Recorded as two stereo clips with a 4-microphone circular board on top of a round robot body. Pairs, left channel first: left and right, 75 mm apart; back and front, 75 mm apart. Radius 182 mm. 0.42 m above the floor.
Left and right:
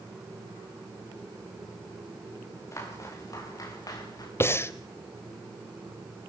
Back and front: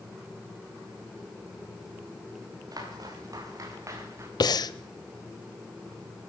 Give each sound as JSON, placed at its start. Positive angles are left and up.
{"t": 2.7, "sound": "footsteps", "azimuth_deg": 40, "distance_m": 7.5}
{"t": 4.4, "sound": "breathing", "azimuth_deg": 150, "distance_m": 0.9}